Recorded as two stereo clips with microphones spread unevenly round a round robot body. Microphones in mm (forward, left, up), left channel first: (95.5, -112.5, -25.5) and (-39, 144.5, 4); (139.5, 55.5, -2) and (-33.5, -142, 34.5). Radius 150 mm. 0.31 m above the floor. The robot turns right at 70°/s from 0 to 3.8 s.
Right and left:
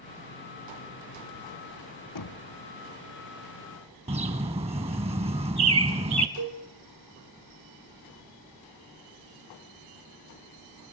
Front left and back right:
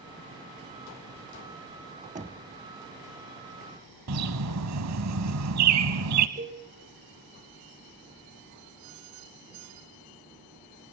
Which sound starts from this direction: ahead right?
Knocking, at 2.1 s.